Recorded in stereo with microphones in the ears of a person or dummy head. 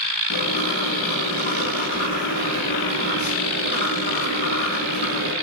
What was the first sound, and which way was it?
Writing, 50° left (ahead or behind).